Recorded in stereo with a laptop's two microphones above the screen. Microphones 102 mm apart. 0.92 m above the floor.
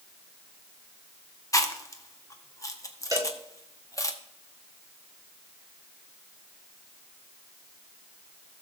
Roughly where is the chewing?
Left.